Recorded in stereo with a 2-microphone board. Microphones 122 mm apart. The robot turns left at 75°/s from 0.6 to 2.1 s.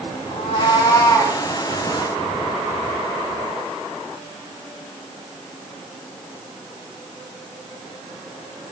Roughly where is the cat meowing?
Ahead left.